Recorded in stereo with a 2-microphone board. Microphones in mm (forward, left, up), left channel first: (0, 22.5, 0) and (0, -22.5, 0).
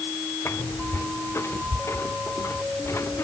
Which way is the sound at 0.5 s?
65° left (ahead or behind).